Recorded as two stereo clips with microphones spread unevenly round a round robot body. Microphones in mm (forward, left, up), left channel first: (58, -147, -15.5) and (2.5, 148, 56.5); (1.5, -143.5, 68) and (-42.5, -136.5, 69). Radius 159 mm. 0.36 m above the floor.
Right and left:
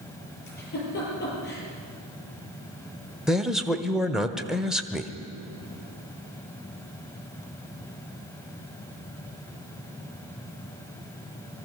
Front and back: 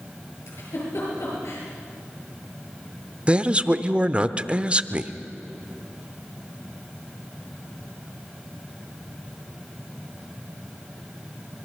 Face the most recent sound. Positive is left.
turn(degrees=-150)